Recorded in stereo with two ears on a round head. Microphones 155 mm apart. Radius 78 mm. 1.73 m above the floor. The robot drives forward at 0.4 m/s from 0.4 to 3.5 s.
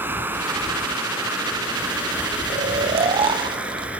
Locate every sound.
0.0 s running water: 15° right (ahead or behind), 2.5 m; by 4.0 s 10° right (ahead or behind), 3.5 m
2.5 s snoring: 45° right (ahead or behind), 0.8 m; by 3.9 s 30° right (ahead or behind), 1.1 m